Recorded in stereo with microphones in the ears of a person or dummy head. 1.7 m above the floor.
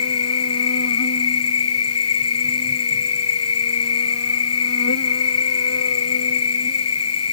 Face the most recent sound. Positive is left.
turn(degrees=75)  # may be behind; listen again after turning